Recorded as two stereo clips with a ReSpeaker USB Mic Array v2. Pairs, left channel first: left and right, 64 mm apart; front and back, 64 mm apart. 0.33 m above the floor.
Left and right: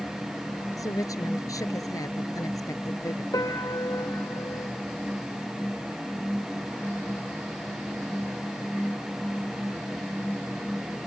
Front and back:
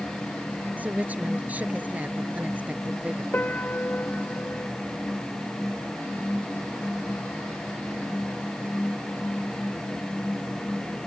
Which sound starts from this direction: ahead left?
A piano, at 3.3 s.